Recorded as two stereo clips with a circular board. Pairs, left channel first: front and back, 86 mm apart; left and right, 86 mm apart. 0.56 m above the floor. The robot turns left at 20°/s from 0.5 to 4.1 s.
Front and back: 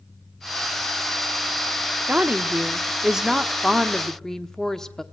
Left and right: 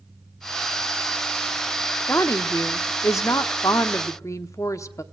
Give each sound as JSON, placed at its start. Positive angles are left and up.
{"t": 2.1, "sound": "a woman speaking", "azimuth_deg": 120, "distance_m": 1.0}